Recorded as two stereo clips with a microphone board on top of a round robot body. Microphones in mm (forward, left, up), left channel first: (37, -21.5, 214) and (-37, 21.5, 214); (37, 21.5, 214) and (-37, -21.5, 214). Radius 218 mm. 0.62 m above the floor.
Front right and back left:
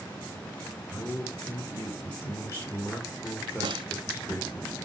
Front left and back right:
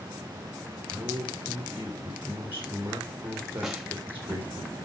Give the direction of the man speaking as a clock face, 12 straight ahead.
3 o'clock.